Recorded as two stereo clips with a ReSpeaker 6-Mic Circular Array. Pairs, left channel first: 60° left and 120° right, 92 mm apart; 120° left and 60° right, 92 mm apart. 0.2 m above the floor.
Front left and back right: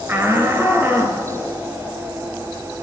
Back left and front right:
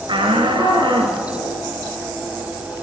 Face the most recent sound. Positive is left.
turn(degrees=-55)